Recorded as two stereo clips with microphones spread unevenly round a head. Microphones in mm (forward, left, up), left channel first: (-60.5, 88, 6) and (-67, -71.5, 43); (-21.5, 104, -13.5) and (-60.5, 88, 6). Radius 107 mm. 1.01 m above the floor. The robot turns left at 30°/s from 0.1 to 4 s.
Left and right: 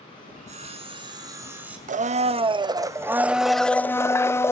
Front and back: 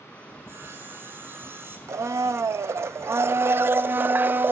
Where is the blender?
135° right, 0.7 m; by 4.5 s 160° left, 0.7 m.